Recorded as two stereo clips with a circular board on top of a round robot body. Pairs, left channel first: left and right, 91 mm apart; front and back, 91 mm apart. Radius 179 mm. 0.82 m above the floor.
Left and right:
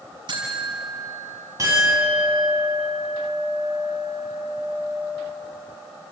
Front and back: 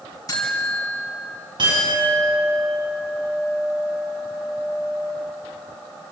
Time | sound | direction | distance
0.3 | a buzzer | 55° right | 5.5 m
1.6 | a clink | 145° right | 6.5 m